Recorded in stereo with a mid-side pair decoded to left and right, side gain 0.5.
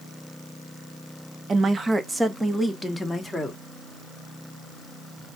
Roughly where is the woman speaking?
Ahead right.